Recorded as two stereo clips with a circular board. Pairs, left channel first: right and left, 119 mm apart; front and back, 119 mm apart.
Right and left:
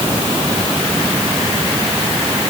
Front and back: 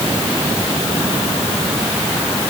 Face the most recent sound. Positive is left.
No sound to turn to.